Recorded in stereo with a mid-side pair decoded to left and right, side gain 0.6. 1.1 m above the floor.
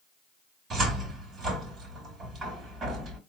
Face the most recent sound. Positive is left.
turn(degrees=-40)